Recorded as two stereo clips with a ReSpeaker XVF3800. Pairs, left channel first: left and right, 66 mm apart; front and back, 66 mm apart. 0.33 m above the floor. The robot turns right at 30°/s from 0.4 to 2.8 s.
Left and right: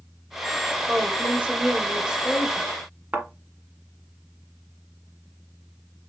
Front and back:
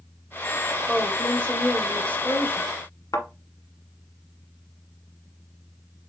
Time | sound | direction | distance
0.9 | a woman speaking | 65° right | 1.1 m
3.1 | a thud | 30° right | 1.5 m